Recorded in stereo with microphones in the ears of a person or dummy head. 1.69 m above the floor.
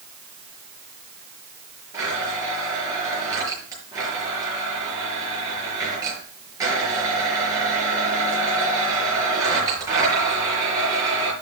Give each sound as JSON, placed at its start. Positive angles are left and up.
{"t": 1.9, "sound": "a blender", "side_deg": -25, "distance_m": 5.5}